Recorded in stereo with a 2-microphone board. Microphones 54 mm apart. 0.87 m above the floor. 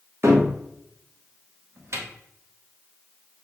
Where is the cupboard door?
50° right (ahead or behind), 1.0 m.